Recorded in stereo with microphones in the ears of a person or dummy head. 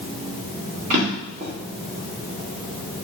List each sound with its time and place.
0.9 s a drawer: 45° right (ahead or behind), 1.5 m